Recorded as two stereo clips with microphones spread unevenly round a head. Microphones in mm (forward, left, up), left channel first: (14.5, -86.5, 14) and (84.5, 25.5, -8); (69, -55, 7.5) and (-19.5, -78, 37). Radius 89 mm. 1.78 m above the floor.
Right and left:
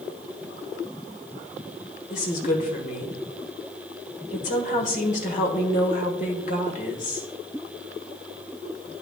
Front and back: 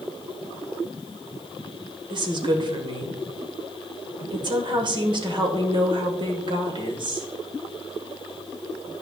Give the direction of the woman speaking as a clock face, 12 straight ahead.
5 o'clock.